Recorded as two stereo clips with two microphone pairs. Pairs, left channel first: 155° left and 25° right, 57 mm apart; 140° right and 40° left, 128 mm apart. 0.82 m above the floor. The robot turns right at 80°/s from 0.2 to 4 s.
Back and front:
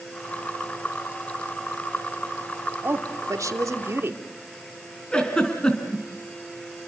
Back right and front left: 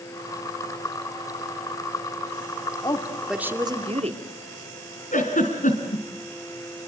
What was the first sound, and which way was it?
A woman speaking, 80° right.